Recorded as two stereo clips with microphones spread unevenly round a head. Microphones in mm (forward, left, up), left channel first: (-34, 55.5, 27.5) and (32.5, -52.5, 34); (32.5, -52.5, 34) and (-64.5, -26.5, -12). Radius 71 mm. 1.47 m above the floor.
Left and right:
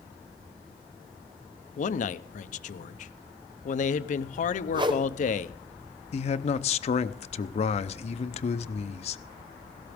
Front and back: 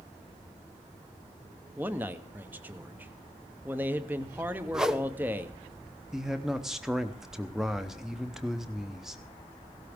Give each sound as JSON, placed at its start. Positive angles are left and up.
{"t": 1.8, "sound": "a man speaking", "azimuth_deg": 95, "distance_m": 0.7}
{"t": 4.7, "sound": "a whoosh", "azimuth_deg": -115, "distance_m": 1.0}
{"t": 6.1, "sound": "a man speaking", "azimuth_deg": 80, "distance_m": 0.7}